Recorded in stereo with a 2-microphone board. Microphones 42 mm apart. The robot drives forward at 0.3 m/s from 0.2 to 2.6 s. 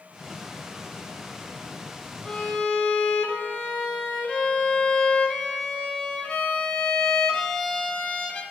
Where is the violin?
20° left (ahead or behind), 0.6 m.